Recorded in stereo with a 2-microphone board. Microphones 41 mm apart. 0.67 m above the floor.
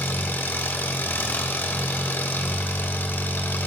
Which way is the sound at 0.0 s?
70° left (ahead or behind).